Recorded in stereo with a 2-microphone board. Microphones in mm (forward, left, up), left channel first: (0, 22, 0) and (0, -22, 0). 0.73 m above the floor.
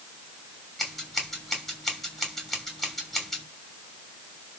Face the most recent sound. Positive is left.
turn(degrees=10)  # may be behind; listen again after turning